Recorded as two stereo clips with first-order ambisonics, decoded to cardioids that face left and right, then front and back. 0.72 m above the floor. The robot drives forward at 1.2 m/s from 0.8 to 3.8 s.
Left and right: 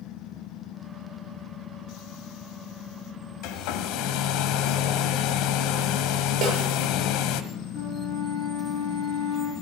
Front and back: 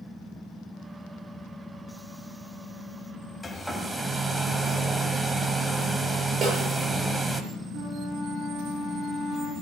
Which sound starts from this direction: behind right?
A snare drum, at 6.4 s.